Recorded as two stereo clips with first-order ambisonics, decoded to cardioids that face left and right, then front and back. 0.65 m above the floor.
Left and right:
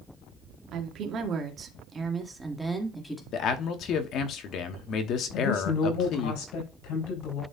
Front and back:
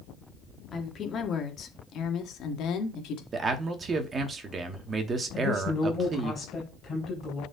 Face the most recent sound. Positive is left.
turn(degrees=75)